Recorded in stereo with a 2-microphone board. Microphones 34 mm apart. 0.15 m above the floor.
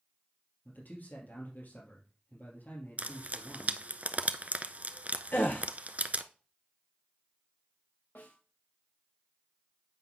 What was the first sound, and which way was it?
A man speaking, 65° left (ahead or behind).